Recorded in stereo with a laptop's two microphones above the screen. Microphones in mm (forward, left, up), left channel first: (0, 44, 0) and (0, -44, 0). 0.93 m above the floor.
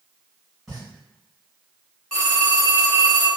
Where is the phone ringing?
5° left (ahead or behind), 0.8 m.